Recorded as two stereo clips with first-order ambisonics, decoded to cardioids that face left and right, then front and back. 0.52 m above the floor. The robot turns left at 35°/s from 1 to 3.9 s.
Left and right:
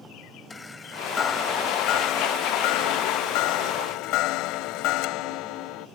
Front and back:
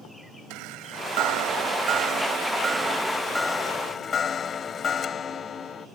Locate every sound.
0.5 s a chime: 165° left; by 5.9 s 65° left